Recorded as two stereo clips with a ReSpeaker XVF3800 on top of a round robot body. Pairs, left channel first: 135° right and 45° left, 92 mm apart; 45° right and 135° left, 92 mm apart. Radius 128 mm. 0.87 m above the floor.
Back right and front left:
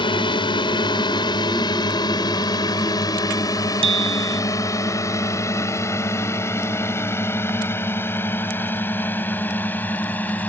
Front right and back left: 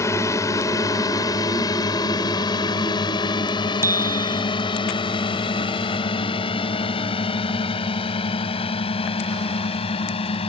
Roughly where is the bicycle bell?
Left.